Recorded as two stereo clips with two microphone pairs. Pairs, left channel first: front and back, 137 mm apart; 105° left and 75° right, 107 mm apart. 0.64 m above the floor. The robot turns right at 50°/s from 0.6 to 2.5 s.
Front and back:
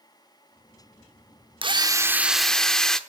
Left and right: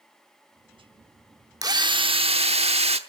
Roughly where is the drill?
Behind right.